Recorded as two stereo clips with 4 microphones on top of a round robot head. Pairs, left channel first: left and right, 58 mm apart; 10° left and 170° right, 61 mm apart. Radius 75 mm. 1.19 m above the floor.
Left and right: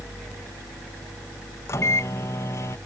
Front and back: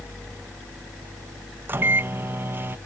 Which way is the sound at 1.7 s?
135° left.